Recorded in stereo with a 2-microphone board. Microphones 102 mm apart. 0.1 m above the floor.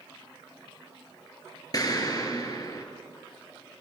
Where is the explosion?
40° left (ahead or behind), 1.9 m.